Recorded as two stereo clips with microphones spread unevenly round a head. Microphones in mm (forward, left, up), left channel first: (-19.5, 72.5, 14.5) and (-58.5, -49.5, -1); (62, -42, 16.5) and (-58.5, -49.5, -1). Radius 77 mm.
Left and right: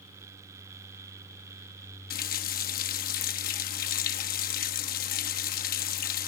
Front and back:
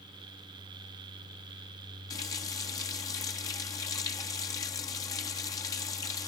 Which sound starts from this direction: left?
A running tap, at 2.1 s.